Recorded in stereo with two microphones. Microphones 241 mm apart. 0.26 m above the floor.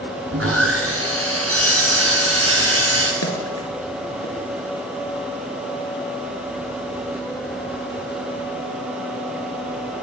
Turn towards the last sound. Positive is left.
turn(degrees=70)  # may be behind; listen again after turning